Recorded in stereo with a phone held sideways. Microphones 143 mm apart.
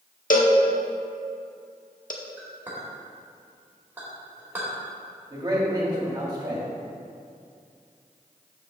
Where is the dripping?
No dripping in this recording.